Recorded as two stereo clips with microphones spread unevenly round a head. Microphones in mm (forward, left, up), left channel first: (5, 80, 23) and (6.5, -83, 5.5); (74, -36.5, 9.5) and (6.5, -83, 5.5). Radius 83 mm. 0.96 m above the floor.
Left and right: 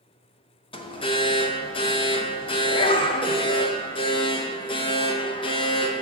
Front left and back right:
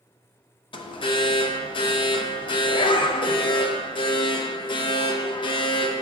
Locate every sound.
0.7 s an alarm: 30° left, 0.5 m